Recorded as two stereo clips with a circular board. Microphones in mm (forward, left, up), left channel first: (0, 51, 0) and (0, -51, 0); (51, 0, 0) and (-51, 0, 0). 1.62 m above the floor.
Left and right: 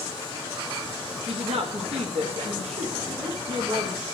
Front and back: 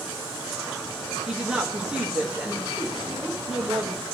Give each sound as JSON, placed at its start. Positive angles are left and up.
{"t": 1.3, "sound": "a woman speaking", "azimuth_deg": -95, "distance_m": 1.1}